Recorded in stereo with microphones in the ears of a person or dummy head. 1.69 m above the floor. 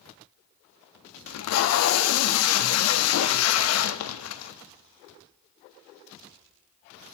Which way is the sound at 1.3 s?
75° left (ahead or behind).